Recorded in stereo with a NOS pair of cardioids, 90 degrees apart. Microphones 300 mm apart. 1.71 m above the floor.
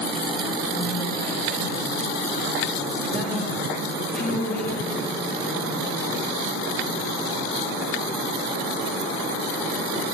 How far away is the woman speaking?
About 3 m.